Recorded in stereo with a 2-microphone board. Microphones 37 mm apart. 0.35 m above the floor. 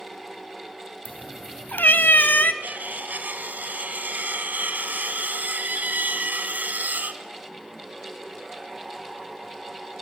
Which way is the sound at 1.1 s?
50° left (ahead or behind).